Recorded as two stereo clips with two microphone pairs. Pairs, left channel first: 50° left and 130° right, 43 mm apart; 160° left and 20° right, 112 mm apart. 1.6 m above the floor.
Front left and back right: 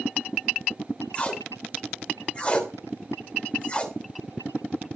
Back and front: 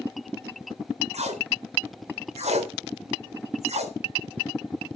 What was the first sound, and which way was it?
Tape being pulled, 15° right.